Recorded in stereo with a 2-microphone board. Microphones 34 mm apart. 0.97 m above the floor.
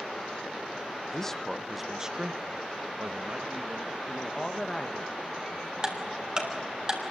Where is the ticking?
20° right (ahead or behind), 3 m.